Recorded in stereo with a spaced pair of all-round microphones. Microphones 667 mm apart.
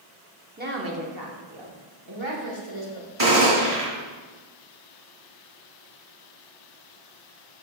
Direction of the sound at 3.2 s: 50° right (ahead or behind).